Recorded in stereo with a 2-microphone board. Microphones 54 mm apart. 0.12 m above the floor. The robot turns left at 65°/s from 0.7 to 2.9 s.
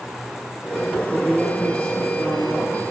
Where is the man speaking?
160° right, 4 m; by 2.9 s 80° left, 4 m.